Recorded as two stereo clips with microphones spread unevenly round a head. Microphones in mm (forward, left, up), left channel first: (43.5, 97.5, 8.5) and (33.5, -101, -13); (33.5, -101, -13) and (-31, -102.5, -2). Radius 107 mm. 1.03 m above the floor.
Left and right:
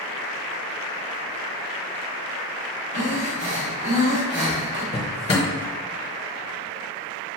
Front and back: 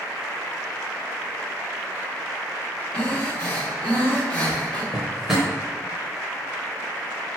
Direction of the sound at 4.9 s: 115° left.